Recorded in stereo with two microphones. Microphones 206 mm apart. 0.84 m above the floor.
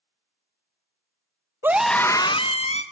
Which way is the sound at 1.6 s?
10° right (ahead or behind).